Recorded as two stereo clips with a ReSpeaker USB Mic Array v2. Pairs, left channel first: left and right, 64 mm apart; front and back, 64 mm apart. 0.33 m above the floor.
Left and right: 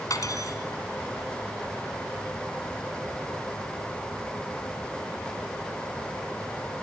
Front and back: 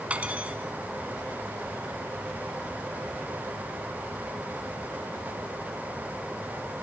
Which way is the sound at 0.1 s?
110° left.